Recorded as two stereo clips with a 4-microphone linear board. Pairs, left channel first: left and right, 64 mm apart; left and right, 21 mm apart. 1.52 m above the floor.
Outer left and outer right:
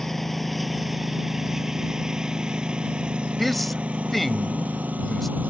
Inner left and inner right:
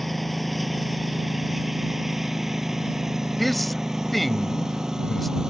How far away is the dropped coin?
No dropped coin in this recording.